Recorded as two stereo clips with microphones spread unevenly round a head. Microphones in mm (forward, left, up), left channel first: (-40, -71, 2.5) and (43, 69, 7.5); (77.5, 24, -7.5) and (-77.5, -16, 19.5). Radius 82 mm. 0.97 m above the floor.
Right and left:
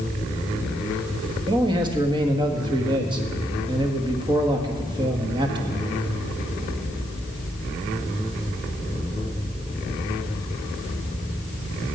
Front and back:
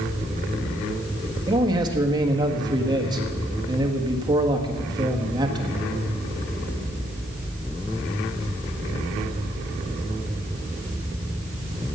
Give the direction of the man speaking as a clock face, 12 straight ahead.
8 o'clock.